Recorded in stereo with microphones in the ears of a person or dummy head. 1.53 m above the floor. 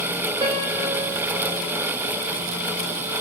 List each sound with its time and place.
0.4 s a piano: 25° right (ahead or behind), 2 m